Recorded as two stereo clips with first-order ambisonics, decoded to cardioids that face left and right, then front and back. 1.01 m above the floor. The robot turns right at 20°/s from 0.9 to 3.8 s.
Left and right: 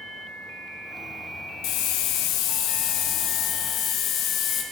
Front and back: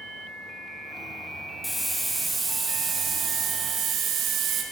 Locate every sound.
1.6 s a hiss: 90° left, 0.8 m; by 4.6 s 135° left, 0.8 m